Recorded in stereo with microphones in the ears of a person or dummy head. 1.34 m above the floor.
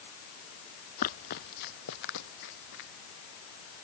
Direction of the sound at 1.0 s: 45° left (ahead or behind).